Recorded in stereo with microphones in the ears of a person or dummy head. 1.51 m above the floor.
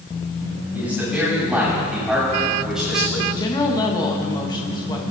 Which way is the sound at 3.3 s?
25° left (ahead or behind).